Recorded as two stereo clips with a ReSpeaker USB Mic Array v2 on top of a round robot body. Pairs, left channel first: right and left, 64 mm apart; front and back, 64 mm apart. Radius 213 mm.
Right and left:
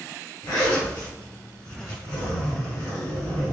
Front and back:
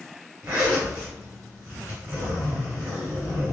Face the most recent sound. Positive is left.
turn(degrees=-115)